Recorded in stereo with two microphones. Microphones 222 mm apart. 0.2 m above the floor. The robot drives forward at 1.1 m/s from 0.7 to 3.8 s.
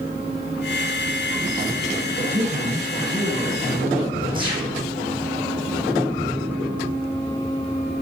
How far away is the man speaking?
About 2.0 m.